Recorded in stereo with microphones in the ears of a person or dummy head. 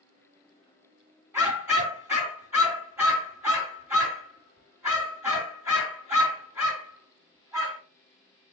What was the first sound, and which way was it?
A dog barking, 20° right (ahead or behind).